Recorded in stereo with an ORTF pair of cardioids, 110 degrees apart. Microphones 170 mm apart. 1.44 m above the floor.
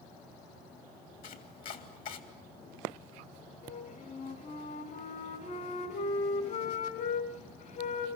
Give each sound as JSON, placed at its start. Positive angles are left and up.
{"t": 1.2, "sound": "chopping", "azimuth_deg": 60, "distance_m": 3.5}
{"t": 3.6, "sound": "a flute", "azimuth_deg": 55, "distance_m": 4.0}